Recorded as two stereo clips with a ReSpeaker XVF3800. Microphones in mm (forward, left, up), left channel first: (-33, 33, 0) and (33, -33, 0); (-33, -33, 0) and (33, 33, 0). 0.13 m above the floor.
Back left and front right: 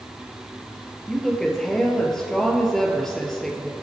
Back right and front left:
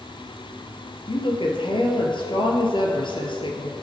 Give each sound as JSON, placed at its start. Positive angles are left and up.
{"t": 1.1, "sound": "a woman speaking", "azimuth_deg": -140, "distance_m": 2.5}